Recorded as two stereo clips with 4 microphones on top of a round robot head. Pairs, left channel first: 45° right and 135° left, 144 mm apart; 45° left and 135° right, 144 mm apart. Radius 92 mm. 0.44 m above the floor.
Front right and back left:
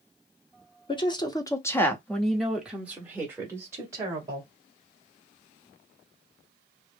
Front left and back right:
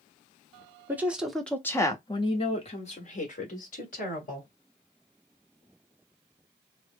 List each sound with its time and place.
0.9 s a woman speaking: 65° right, 1.0 m; by 4.5 s 65° left, 2 m